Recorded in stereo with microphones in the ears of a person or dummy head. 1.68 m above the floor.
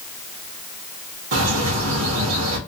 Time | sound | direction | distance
1.3 | a bird | 80° right | 0.9 m